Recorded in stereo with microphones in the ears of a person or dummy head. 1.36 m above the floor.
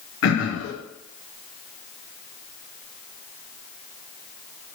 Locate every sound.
0.2 s throat clearing: 65° left (ahead or behind), 0.8 m